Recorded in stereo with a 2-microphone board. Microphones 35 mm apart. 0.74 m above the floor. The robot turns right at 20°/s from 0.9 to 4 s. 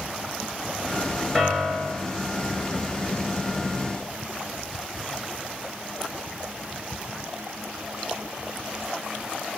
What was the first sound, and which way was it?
A piano, 20° left (ahead or behind).